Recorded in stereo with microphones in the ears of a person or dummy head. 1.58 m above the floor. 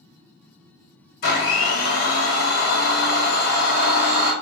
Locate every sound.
1.2 s a blender: 65° left (ahead or behind), 1.5 m